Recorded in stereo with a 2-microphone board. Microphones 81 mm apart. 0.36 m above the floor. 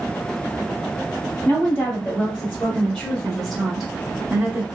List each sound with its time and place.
1.4 s a woman speaking: 30° left (ahead or behind), 1.4 m; by 4.6 s 15° right (ahead or behind), 1.1 m